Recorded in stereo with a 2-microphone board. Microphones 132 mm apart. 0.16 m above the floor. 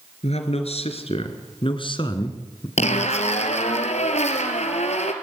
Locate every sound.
0.2 s a man speaking: 60° left (ahead or behind), 3.5 m; by 2.7 s 30° left (ahead or behind), 2 m
2.8 s a zipper: 65° left (ahead or behind), 2.5 m